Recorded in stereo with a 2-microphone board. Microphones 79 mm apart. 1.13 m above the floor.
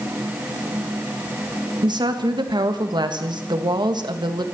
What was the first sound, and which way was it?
A woman speaking, 70° right (ahead or behind).